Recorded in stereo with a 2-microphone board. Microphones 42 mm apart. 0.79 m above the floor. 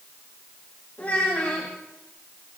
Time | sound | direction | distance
1.0 | a child speaking | 40° left (ahead or behind) | 3.5 m